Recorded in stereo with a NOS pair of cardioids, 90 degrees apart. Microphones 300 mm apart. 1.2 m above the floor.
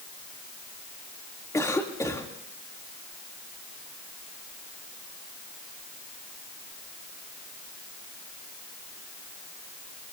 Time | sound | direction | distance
1.5 | a cough | 10° left | 3 m